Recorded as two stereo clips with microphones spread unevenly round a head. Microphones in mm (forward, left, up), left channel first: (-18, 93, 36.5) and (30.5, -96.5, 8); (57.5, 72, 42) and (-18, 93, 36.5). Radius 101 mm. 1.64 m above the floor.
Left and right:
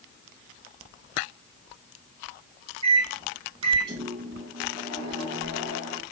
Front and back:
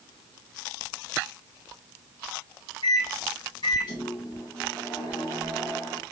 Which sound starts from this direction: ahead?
A microwave, at 2.8 s.